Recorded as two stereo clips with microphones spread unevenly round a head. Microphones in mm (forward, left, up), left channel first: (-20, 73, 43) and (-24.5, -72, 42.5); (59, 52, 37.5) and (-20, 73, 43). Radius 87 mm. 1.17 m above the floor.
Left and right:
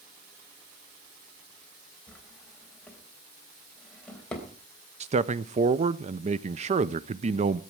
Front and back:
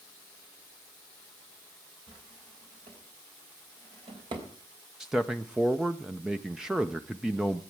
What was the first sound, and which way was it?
A drawer, 170° left.